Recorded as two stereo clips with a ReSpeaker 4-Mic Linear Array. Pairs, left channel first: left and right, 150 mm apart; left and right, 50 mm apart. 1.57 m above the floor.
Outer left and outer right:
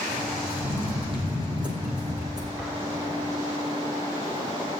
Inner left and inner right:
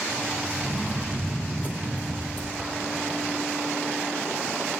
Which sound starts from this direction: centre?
An explosion, at 2.6 s.